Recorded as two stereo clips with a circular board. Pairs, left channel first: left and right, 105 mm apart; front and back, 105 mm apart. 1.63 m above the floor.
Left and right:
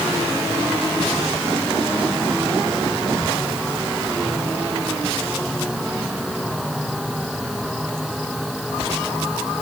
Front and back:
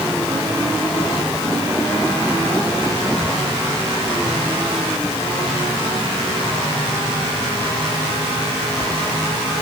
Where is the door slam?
I don't hear a door slam.